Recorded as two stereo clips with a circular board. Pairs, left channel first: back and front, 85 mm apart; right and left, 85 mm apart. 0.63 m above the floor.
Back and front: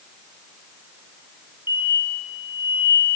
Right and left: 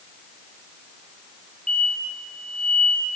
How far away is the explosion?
About 3 m.